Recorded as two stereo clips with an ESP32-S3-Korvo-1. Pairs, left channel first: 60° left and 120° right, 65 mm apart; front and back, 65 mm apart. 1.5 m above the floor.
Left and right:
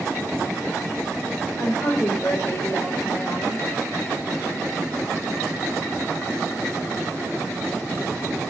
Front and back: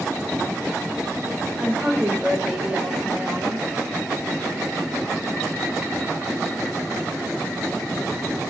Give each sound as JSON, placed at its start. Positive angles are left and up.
{"t": 1.6, "sound": "a woman speaking", "azimuth_deg": 105, "distance_m": 5.0}